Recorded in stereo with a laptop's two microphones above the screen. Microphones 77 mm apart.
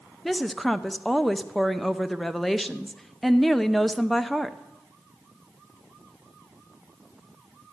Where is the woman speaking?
5° left (ahead or behind), 0.6 m.